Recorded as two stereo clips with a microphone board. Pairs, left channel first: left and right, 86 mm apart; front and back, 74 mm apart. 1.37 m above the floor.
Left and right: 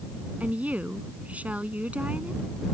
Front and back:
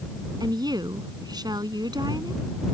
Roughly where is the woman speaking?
Behind.